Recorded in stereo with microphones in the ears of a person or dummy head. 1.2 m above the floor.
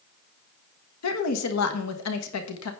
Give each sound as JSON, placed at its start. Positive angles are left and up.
{"t": 1.0, "sound": "a woman speaking", "side_deg": 80, "distance_m": 1.3}